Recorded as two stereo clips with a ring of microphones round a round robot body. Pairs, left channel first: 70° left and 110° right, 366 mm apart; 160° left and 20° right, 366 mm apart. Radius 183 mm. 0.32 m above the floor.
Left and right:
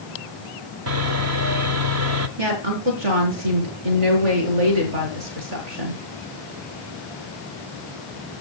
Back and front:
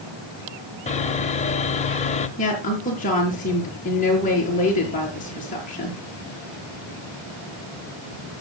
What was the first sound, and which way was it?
Sawing, 140° right.